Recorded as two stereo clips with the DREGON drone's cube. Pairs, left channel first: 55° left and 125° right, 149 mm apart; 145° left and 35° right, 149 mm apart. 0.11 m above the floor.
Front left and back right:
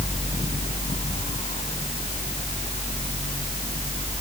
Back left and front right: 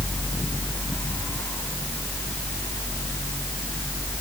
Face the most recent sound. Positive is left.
No sound to turn to.